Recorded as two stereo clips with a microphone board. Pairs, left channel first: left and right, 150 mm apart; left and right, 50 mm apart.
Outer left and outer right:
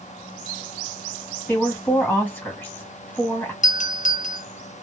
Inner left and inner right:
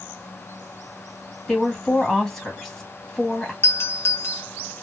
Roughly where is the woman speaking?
Centre.